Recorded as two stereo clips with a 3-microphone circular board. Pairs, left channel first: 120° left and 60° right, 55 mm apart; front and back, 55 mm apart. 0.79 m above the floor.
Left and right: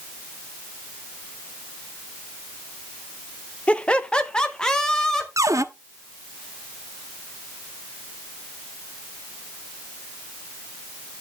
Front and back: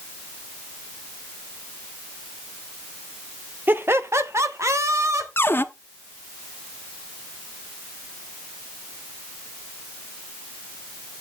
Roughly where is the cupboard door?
Ahead right.